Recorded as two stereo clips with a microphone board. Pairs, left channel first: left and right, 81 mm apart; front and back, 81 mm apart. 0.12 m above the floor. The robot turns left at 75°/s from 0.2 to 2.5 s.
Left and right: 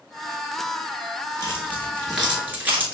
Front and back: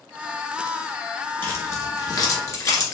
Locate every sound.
1.4 s keys jangling: 55° left, 1.1 m; by 2.9 s 30° right, 1.1 m